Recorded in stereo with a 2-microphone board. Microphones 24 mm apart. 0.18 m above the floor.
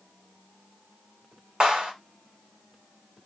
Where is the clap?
35° right (ahead or behind), 1.2 m.